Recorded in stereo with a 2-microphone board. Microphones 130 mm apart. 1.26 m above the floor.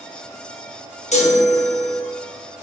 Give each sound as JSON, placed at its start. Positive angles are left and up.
{"t": 1.1, "sound": "a chime", "side_deg": 60, "distance_m": 1.1}